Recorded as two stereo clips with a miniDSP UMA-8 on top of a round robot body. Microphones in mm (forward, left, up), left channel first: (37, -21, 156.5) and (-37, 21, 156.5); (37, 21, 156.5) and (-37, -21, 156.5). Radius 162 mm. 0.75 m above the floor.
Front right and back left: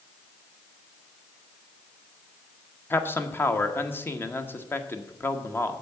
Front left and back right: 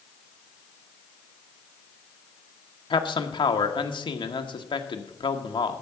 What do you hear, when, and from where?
2.9 s a man speaking: 35° left, 1.3 m